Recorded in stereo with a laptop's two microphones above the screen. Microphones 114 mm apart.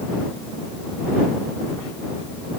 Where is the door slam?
No door slam in this recording.